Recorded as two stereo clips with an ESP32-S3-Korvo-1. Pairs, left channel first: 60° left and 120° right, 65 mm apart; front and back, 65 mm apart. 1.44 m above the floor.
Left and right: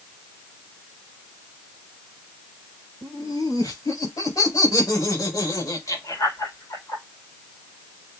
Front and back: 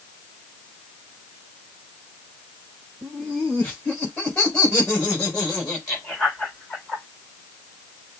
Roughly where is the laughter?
Left.